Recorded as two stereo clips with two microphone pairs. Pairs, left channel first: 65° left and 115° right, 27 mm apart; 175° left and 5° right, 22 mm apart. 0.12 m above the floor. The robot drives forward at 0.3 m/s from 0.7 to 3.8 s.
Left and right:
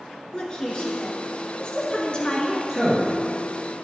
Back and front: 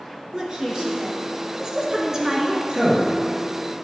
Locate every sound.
0.3 s a woman speaking: 25° left, 1.6 m; by 2.6 s 45° left, 1.3 m
2.7 s a man speaking: 40° right, 2.5 m